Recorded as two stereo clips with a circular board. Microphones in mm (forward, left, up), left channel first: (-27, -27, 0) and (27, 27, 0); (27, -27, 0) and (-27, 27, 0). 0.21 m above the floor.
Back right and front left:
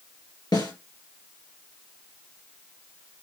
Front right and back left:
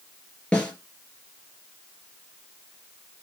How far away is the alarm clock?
I don't hear an alarm clock.